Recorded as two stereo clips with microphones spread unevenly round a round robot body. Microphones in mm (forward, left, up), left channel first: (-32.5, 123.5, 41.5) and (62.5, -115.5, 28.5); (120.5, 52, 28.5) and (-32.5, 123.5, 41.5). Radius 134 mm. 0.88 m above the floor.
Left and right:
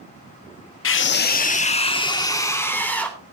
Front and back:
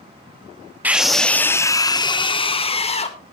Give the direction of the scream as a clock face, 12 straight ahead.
10 o'clock.